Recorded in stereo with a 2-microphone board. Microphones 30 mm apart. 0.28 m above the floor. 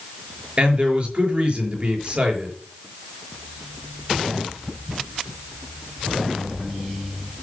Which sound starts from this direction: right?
A man speaking, at 0.6 s.